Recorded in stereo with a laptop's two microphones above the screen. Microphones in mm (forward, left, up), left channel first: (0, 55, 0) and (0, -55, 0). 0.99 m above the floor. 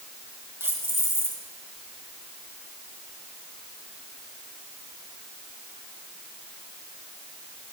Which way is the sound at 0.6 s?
20° right (ahead or behind).